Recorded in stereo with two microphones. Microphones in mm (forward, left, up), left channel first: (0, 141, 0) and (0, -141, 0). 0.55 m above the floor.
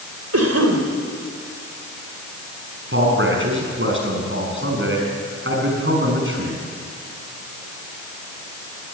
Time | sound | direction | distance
0.3 | a cough | 65° right (ahead or behind) | 2.5 m
2.9 | a man speaking | 45° right (ahead or behind) | 5.5 m